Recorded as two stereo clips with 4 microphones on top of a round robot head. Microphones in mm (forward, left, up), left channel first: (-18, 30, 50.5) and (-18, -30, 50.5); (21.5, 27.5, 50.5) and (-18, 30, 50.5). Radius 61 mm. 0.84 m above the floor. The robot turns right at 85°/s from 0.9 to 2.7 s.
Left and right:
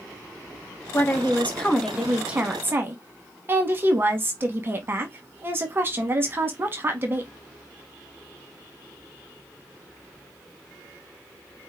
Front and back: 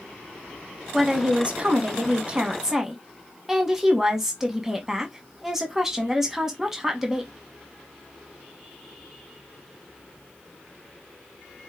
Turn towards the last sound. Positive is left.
turn(degrees=-110)